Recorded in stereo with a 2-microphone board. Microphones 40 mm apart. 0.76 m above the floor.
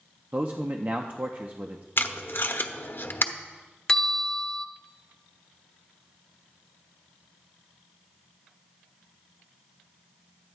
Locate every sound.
0.3 s a man speaking: 40° right (ahead or behind), 0.7 m
2.0 s tape being pulled: 60° left (ahead or behind), 0.8 m
3.9 s a bell: 15° left (ahead or behind), 0.7 m